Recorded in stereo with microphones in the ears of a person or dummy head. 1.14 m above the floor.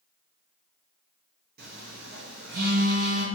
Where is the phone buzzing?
45° right (ahead or behind), 0.8 m.